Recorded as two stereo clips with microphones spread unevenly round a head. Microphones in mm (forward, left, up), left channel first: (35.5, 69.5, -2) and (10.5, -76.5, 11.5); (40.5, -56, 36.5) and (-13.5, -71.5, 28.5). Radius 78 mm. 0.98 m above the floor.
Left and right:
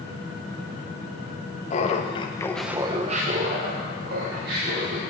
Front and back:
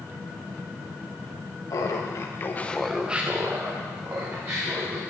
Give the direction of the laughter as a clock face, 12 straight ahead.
10 o'clock.